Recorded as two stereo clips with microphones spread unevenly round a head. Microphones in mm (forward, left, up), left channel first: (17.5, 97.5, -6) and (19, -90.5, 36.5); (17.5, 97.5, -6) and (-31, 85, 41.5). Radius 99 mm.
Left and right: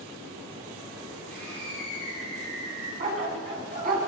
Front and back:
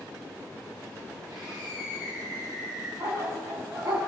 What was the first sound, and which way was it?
A scream, 145° right.